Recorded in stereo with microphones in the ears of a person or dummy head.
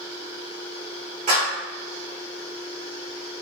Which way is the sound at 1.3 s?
50° right (ahead or behind).